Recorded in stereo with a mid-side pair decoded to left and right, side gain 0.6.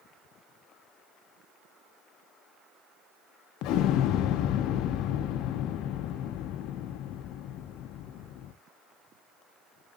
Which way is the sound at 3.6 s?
65° left.